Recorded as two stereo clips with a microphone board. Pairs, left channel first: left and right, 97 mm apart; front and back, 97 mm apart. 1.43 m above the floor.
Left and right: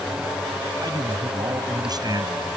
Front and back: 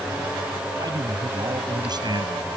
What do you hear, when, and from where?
0.8 s a man speaking: 135° right